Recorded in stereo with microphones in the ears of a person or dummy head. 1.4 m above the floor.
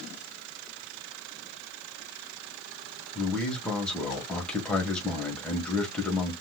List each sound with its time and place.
3.1 s a man speaking: 5° left (ahead or behind), 1.3 m